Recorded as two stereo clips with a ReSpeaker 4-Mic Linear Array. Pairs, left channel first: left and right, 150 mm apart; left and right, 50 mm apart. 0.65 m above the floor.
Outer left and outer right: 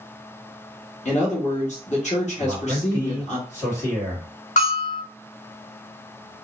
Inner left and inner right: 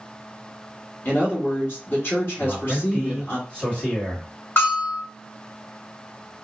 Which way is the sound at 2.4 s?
20° left (ahead or behind).